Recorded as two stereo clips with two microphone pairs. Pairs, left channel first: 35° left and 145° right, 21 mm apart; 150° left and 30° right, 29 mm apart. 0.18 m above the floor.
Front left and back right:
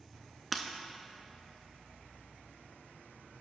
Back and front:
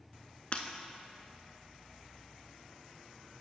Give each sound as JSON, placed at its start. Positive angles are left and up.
{"t": 0.5, "sound": "breaking glass", "azimuth_deg": 125, "distance_m": 0.6}